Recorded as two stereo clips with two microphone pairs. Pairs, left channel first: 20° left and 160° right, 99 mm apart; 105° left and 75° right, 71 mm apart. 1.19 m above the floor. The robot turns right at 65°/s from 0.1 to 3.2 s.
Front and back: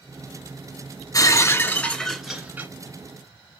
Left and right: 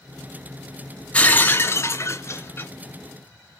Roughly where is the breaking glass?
Ahead left.